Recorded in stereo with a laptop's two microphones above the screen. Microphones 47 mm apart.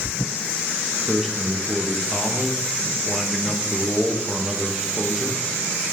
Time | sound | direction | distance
1.1 | a man speaking | 10° right (ahead or behind) | 1.2 m